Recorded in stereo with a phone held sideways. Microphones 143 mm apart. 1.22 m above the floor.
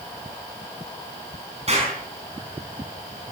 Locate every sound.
1.7 s an explosion: 45° right (ahead or behind), 5.5 m